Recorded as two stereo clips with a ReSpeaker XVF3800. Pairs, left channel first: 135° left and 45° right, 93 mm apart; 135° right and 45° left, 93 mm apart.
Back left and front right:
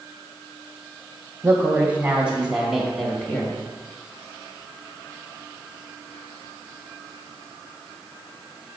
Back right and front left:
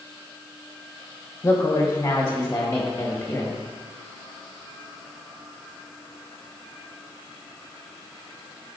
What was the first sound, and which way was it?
A woman speaking, 95° right.